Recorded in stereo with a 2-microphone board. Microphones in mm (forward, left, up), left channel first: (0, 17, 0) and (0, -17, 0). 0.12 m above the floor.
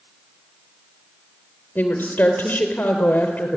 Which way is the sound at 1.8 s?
55° left (ahead or behind).